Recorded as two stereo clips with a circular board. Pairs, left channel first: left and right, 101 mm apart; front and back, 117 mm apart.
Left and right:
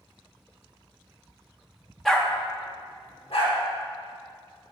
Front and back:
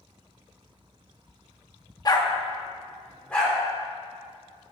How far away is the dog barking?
About 0.7 m.